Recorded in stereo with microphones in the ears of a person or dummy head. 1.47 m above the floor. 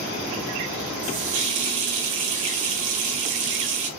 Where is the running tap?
40° right (ahead or behind), 0.8 m.